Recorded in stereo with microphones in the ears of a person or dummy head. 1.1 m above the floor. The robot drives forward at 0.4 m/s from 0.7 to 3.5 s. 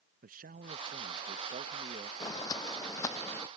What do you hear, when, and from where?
0.2 s a man speaking: 45° right (ahead or behind); by 2.1 s 35° right (ahead or behind)
2.2 s footsteps: 25° left (ahead or behind); by 3.5 s 20° left (ahead or behind)